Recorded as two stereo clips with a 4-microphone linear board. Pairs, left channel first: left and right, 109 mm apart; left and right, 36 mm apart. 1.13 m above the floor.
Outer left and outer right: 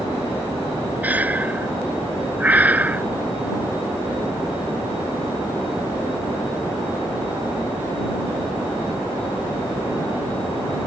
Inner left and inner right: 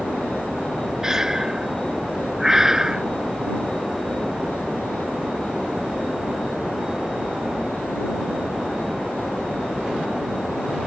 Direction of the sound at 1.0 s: 15° right (ahead or behind).